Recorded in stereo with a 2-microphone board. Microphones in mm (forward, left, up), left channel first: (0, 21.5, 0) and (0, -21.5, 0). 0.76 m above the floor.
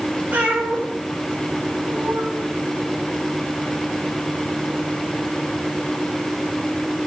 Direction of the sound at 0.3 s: 30° right (ahead or behind).